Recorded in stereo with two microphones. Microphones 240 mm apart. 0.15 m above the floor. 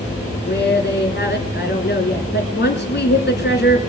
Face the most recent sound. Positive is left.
turn(degrees=45)  # may be behind; listen again after turning